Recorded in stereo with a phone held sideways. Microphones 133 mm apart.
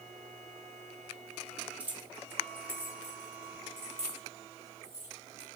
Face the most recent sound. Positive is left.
turn(degrees=-20)  # may be behind; listen again after turning